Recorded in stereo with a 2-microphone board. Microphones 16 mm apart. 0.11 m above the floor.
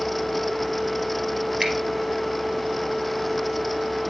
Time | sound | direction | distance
1.6 | a finger snap | 25° right (ahead or behind) | 3 m